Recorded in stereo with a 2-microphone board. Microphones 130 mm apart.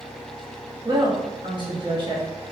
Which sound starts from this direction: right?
A woman speaking, at 0.8 s.